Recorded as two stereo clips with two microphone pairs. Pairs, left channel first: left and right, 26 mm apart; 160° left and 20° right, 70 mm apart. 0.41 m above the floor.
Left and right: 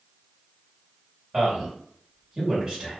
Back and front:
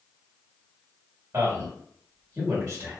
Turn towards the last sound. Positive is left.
turn(degrees=-35)